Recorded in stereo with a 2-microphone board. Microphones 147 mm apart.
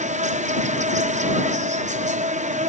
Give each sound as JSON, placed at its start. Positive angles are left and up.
{"t": 0.0, "sound": "an insect", "side_deg": -55}